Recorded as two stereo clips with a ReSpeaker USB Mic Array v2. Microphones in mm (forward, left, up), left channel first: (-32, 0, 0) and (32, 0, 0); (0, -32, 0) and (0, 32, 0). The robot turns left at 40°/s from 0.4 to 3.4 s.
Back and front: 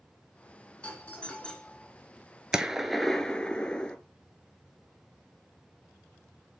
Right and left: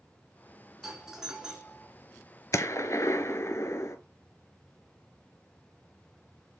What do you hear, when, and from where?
0.8 s a doorbell: 170° left, 1.8 m; by 1.9 s 130° left, 1.8 m
2.5 s a gunshot: 75° right, 0.6 m; by 4.0 s 110° right, 0.6 m